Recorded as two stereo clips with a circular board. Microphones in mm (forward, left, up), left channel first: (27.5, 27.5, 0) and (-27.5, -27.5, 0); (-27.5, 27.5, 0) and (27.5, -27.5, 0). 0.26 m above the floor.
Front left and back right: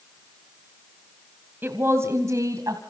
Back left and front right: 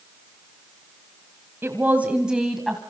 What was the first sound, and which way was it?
A woman speaking, 85° right.